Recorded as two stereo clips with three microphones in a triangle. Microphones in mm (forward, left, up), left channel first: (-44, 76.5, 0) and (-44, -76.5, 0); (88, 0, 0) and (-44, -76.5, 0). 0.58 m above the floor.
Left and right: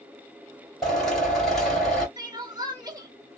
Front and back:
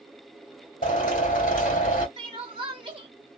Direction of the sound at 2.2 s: 135° right.